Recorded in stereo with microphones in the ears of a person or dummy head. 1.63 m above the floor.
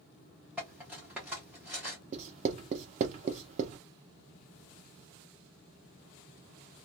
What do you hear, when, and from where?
0.6 s cutlery clinking: 5° right (ahead or behind), 0.7 m
2.1 s writing: 40° right (ahead or behind), 0.6 m